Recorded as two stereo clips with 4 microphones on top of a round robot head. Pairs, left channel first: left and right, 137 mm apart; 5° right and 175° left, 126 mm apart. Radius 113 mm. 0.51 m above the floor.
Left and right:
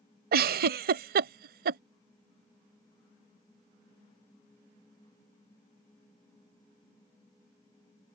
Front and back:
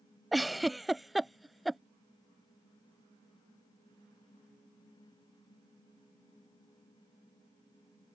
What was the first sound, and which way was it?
A giggle, 95° right.